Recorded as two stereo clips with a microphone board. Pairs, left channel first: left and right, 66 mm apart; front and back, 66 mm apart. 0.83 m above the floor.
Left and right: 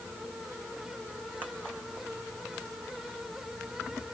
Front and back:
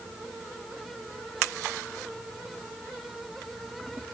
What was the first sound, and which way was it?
Only background noise.